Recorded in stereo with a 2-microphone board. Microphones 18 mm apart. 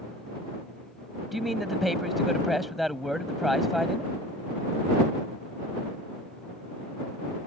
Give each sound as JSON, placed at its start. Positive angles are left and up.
{"t": 1.3, "sound": "a man speaking", "side_deg": 0}